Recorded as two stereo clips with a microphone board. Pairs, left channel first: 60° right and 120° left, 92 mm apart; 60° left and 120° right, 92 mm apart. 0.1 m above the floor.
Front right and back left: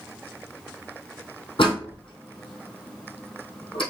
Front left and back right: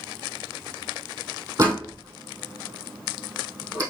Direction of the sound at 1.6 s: 75° right.